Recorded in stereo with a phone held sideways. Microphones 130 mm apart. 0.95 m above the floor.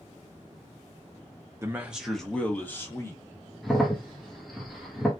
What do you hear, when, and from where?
1.6 s a man speaking: 20° right (ahead or behind), 0.5 m; by 3.2 s 20° left (ahead or behind), 1.1 m
3.6 s a crack: centre (ahead or behind), 1.0 m